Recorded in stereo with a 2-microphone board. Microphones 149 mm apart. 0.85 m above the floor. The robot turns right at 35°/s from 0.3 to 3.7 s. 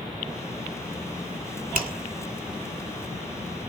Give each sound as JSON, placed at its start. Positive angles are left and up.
{"t": 1.8, "sound": "a finger snap", "side_deg": -70, "distance_m": 2.0}